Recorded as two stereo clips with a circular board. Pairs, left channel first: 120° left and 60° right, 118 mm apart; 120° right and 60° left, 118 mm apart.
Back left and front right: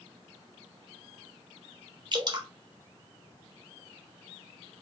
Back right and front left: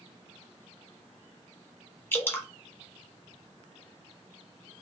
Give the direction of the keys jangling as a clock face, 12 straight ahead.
I don't hear keys jangling.